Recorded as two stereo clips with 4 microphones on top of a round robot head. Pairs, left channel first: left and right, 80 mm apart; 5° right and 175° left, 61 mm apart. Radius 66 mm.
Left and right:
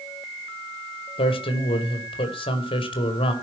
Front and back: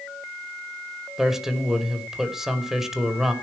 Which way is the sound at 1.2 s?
95° left.